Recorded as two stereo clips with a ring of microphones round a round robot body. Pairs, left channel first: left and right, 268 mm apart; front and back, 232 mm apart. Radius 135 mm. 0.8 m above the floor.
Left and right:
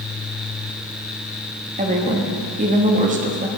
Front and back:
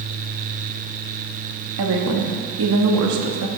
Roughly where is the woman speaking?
Behind right.